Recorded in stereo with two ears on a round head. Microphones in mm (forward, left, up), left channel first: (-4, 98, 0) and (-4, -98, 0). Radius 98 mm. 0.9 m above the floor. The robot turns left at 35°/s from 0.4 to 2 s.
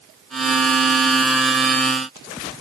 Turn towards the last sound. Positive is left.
No sound to turn to.